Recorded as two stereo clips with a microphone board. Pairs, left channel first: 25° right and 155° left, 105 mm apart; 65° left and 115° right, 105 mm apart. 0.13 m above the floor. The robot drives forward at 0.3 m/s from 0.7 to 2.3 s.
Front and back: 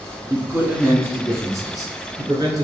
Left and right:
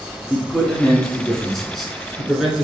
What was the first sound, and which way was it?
A man speaking, 135° left.